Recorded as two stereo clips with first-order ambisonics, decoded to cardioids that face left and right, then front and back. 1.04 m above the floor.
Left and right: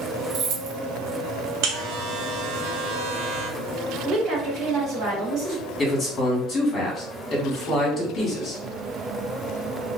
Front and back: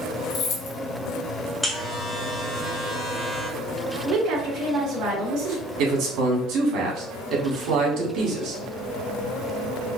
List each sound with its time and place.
0.3 s keys jangling: 50° right, 0.6 m
1.6 s a buzzer: 90° right, 0.8 m
4.0 s a woman speaking: 150° right, 1.7 m
5.8 s a man speaking: 155° left, 1.5 m